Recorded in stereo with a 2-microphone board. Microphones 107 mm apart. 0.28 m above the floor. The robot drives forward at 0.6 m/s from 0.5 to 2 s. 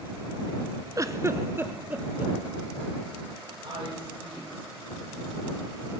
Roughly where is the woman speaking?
Right.